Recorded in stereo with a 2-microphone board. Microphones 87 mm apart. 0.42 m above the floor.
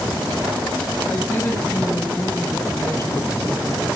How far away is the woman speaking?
About 2 m.